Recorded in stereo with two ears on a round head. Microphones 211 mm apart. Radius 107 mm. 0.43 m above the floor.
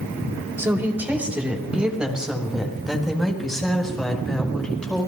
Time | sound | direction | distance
0.6 | a woman speaking | 10° right (ahead or behind) | 2 m